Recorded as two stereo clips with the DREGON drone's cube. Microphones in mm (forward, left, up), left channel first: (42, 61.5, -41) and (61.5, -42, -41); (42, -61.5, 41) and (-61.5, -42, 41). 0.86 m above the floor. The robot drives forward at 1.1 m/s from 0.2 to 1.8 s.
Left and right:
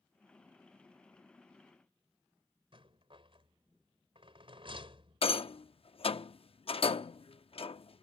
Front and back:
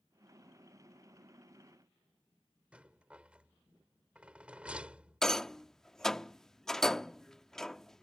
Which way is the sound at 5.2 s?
75° left.